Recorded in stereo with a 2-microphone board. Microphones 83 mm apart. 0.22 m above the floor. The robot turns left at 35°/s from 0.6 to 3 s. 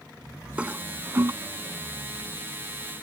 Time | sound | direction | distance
0.6 | a toilet flushing | 15° right (ahead or behind) | ?